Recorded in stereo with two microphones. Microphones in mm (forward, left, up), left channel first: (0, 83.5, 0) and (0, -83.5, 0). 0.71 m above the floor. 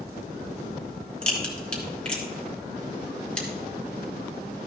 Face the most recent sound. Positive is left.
turn(degrees=5)  # may be behind; listen again after turning